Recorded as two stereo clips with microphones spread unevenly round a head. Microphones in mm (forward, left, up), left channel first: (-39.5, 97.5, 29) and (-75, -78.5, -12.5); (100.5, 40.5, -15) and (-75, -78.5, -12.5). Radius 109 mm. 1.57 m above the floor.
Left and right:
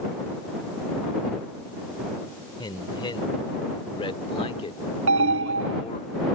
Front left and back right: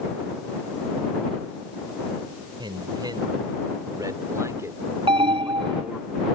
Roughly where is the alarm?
Right.